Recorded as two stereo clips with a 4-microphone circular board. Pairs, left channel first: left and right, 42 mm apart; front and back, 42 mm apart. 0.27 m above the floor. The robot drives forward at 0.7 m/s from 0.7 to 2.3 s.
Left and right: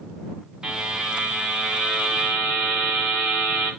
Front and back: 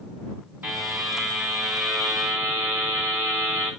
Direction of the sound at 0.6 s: 155° right.